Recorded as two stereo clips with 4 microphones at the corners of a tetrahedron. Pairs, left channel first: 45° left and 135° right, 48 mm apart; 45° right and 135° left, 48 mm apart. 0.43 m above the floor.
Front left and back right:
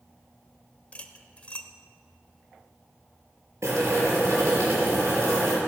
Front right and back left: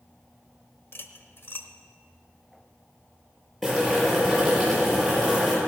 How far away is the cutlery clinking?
About 0.9 m.